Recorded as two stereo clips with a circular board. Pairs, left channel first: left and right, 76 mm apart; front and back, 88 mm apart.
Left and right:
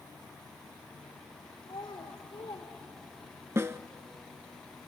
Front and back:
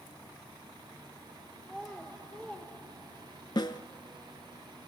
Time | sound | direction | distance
1.6 | a child speaking | 80° left | 3.5 m
3.5 | a snare drum | 35° right | 0.7 m